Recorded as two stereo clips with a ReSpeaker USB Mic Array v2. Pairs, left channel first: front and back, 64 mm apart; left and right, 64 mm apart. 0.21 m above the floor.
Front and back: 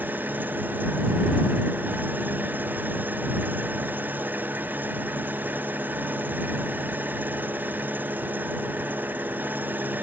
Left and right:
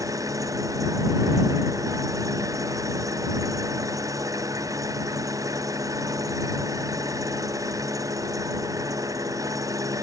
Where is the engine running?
120° right.